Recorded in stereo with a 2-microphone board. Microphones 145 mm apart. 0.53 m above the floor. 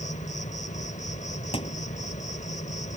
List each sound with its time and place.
0.0 s an insect: 55° left (ahead or behind)
1.5 s a thud: 40° left (ahead or behind)